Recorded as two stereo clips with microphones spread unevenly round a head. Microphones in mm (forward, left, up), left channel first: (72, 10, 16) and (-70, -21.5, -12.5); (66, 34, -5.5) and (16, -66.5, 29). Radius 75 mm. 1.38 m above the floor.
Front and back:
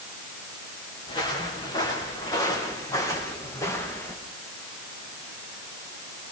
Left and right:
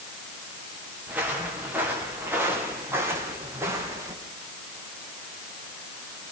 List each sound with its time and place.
1.1 s footsteps: 45° right, 6 m; by 4.2 s 60° right, 5 m